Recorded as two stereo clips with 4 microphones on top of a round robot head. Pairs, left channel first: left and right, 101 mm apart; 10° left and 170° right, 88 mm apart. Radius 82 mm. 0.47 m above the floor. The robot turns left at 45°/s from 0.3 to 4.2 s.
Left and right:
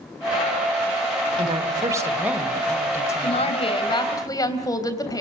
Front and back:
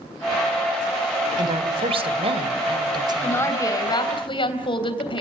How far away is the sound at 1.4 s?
About 2 m.